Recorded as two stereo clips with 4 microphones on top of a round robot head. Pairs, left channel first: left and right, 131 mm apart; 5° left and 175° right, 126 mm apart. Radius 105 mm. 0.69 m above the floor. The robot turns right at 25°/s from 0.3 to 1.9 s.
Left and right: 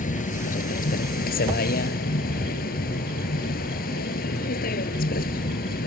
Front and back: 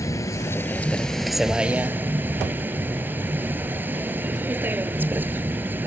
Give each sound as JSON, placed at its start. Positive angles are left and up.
{"t": 0.0, "sound": "a vehicle", "azimuth_deg": 70}